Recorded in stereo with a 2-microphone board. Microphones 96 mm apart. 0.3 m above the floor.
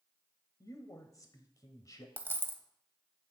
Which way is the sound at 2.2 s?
25° right (ahead or behind).